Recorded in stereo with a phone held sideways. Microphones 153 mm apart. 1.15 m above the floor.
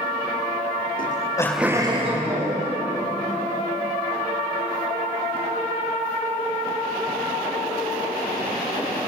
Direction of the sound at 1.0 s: 65° left (ahead or behind).